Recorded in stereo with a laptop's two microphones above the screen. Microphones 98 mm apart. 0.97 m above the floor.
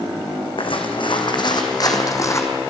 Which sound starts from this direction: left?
Footsteps, at 0.6 s.